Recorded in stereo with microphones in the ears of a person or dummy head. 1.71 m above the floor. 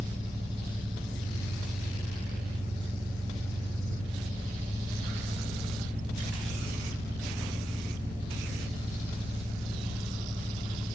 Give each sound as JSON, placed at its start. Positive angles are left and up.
{"t": 0.0, "sound": "an engine running", "side_deg": -20, "distance_m": 1.8}